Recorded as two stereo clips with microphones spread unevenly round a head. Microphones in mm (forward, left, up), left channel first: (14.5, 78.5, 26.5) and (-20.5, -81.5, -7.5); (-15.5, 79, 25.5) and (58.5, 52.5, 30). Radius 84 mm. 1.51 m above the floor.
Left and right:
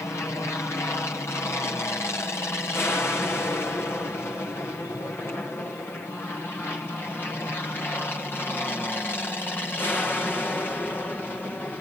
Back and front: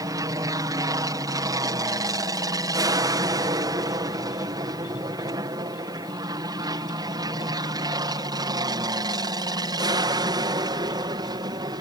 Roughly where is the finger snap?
I don't hear a finger snap.